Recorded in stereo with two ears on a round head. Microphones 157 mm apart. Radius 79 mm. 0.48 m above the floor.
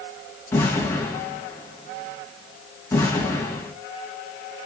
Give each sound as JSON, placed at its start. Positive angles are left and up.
{"t": 0.5, "sound": "an explosion", "side_deg": 15, "distance_m": 2.5}